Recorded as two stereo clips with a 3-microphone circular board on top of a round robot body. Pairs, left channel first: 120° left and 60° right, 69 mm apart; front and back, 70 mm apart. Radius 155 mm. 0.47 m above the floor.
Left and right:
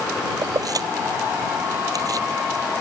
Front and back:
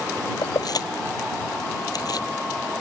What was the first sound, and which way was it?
Keys jangling, 30° right.